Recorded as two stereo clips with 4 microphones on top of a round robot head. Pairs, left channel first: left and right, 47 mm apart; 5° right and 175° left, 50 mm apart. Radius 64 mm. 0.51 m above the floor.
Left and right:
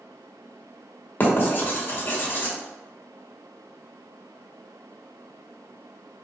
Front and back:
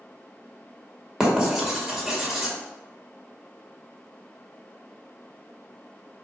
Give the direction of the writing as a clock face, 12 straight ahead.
9 o'clock.